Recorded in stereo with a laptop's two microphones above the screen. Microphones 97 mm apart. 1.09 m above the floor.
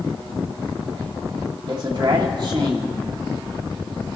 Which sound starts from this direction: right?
A man speaking, at 1.7 s.